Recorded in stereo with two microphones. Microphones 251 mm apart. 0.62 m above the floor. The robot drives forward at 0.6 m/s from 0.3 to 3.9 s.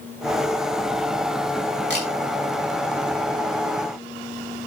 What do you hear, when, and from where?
1.9 s a camera shutter: 45° right (ahead or behind), 7 m